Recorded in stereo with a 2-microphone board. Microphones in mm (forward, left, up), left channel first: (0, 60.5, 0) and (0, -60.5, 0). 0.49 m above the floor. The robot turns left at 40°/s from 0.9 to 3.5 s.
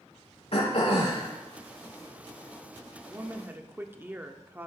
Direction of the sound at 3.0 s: 25° right (ahead or behind).